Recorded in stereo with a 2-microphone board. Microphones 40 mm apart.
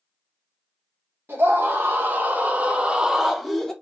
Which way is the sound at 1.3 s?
65° right (ahead or behind).